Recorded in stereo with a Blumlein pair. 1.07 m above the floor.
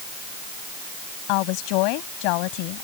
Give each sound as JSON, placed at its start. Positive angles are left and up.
{"t": 1.3, "sound": "a woman speaking", "azimuth_deg": 45}